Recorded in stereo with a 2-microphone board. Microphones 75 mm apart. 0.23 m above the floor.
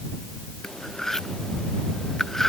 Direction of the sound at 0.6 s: 5° left (ahead or behind).